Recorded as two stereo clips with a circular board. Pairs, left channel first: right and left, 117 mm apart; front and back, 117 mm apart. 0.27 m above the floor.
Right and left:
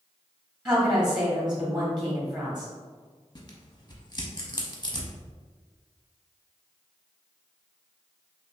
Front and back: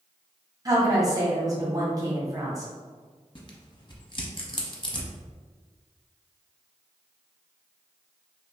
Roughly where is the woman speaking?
Behind.